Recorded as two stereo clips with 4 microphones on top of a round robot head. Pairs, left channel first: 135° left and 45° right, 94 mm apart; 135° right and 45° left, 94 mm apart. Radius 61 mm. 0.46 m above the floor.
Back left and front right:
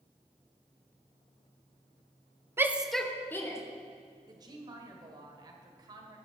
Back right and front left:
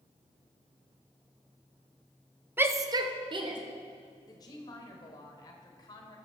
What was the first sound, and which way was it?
A shout, 5° right.